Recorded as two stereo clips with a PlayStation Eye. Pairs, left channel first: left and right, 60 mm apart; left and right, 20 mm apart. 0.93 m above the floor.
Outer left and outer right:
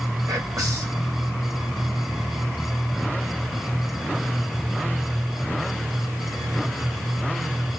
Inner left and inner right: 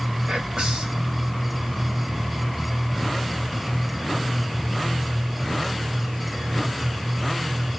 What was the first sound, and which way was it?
Whispering, 75° right (ahead or behind).